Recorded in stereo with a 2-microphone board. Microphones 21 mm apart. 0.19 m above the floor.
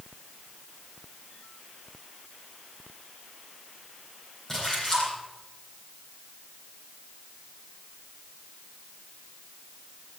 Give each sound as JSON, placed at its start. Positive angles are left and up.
{"t": 4.5, "sound": "a splash", "side_deg": 15, "distance_m": 7.5}